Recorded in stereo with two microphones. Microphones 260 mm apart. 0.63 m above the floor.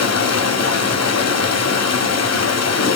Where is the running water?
75° left (ahead or behind), 1.0 m.